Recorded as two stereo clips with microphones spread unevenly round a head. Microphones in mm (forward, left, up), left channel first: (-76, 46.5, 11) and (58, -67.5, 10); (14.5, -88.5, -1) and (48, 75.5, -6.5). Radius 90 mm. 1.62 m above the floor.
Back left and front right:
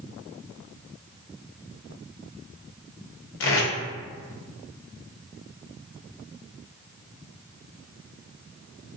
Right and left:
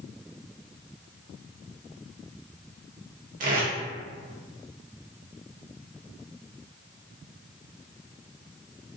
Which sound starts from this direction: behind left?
Tape being pulled, at 3.4 s.